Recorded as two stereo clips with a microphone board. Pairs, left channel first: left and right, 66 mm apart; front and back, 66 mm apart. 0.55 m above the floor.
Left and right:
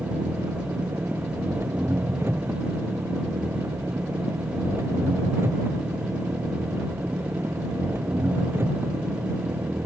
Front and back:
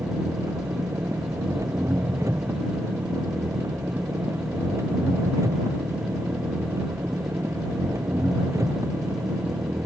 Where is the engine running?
140° right.